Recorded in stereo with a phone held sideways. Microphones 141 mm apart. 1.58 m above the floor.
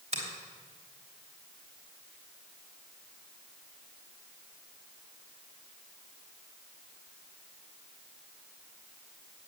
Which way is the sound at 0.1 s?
50° right (ahead or behind).